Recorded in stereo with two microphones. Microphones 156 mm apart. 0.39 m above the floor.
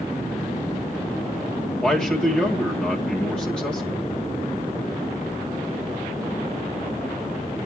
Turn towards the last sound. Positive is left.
turn(degrees=5)  # may be behind; listen again after turning